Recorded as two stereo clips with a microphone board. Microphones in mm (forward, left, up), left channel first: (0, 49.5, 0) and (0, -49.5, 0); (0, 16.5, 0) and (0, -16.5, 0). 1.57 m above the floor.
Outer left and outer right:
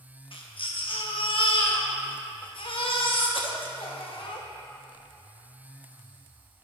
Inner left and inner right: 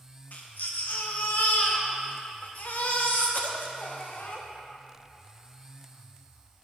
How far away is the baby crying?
About 0.9 m.